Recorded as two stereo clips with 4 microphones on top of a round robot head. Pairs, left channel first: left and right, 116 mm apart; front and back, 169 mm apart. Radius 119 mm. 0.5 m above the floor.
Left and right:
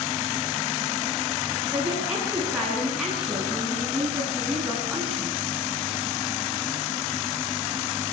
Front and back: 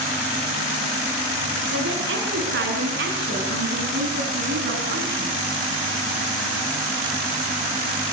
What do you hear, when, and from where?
1.7 s a woman speaking: 175° right, 8.5 m; by 5.3 s straight behind, 5 m